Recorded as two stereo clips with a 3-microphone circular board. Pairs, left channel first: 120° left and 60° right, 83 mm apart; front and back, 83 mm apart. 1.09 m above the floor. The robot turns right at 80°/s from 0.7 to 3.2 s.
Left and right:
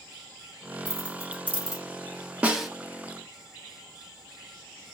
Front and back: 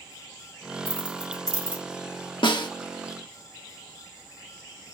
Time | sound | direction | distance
0.8 | keys jangling | straight ahead | 2.0 m
2.4 | a snare drum | 15° left | 1.2 m